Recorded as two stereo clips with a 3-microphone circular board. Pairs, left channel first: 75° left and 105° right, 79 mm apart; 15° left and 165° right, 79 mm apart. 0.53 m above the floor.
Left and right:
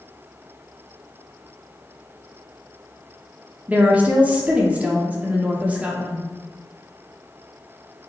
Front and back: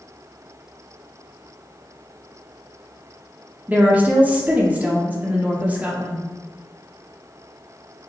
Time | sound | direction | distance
3.7 | a woman speaking | 135° right | 0.6 m